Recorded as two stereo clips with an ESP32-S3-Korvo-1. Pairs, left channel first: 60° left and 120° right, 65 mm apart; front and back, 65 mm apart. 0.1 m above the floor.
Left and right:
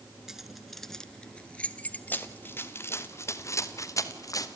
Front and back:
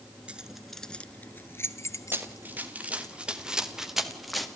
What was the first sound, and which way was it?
Keys jangling, 175° left.